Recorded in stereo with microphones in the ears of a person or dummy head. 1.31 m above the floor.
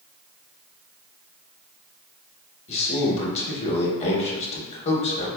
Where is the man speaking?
35° left (ahead or behind), 0.9 m.